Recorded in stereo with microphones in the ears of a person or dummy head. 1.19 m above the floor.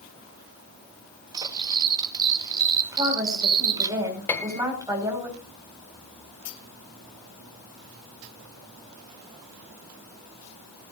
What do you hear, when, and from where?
1.3 s cutlery clinking: 20° right (ahead or behind), 1.0 m
2.9 s a woman speaking: 15° right (ahead or behind), 5 m
4.3 s a piano: 10° left (ahead or behind), 1.6 m